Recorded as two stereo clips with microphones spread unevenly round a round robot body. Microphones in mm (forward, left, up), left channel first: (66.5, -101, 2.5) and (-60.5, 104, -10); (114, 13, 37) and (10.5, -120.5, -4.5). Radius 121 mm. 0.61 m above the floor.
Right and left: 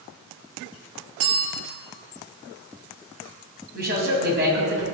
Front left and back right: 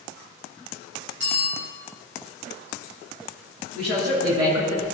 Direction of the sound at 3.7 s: 175° left.